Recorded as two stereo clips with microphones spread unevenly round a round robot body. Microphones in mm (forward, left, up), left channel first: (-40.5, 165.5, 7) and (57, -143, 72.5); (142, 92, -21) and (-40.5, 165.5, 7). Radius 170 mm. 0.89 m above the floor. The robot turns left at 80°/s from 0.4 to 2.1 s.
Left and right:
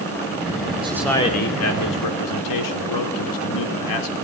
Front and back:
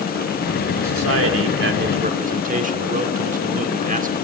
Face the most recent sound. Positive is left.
turn(degrees=110)